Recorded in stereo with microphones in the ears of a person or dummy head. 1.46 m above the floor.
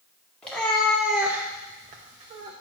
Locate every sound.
0.4 s a cat meowing: 10° left (ahead or behind), 1.9 m; by 2.5 s 30° right (ahead or behind), 1.5 m